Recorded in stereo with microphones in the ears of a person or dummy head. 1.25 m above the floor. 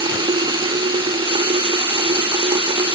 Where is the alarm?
No alarm in this recording.